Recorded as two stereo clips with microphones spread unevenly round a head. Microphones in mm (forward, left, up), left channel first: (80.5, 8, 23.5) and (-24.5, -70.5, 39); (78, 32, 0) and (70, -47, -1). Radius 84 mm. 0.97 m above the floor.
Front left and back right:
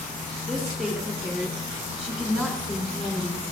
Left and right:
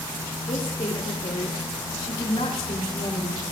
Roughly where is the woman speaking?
Behind left.